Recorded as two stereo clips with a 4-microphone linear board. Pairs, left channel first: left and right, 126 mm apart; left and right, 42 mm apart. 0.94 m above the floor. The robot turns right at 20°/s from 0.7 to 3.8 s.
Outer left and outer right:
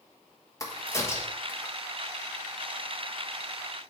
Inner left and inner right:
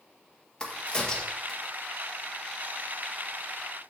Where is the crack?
25° left (ahead or behind), 1.2 m; by 1.7 s 10° left (ahead or behind), 1.2 m.